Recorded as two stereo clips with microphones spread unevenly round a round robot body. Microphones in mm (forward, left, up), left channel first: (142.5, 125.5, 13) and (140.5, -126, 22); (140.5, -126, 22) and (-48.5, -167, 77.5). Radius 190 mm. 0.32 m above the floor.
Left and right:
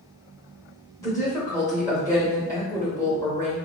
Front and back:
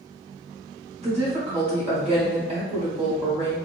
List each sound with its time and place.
1.0 s a woman speaking: 140° left, 1.3 m